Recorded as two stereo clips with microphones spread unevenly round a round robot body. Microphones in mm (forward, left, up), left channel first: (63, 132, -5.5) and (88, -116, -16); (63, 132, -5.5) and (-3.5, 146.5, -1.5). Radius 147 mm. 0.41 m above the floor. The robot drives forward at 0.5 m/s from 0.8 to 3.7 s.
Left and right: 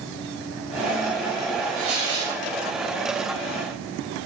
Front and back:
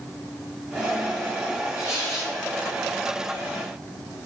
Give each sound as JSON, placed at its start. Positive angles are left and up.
{"t": 1.8, "sound": "tearing paper", "azimuth_deg": -145, "distance_m": 2.0}